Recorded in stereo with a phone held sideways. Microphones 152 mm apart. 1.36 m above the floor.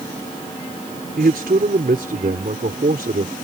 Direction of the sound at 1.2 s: 80° right.